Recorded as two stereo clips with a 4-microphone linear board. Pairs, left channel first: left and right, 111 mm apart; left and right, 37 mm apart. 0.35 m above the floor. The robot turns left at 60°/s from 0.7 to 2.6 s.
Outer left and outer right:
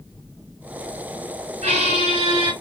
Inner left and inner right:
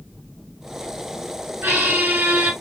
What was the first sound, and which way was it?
A squeak, 80° right.